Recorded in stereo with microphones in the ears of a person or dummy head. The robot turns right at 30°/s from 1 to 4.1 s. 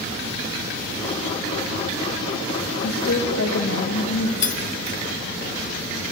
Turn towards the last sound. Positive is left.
turn(degrees=50)  # may be behind; listen again after turning